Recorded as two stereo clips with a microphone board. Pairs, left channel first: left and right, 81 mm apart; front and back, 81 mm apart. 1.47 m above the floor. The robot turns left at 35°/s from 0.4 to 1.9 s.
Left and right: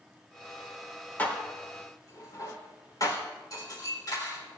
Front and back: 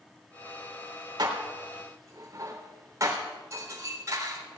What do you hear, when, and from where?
1.2 s dishes clattering: 155° left, 3.5 m; by 4.4 s 130° left, 3.5 m